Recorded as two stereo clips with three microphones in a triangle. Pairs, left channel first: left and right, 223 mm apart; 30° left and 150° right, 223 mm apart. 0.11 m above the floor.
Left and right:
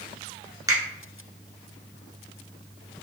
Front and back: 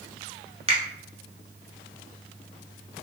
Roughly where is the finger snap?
Behind right.